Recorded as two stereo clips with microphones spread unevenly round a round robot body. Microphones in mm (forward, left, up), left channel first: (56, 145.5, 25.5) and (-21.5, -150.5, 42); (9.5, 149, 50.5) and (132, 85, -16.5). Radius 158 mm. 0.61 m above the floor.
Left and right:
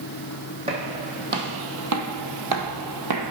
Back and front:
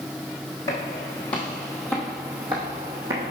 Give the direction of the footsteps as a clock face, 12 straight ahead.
6 o'clock.